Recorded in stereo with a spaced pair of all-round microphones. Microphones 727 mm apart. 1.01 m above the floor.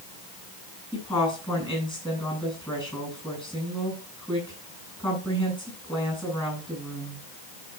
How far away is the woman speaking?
About 8.5 m.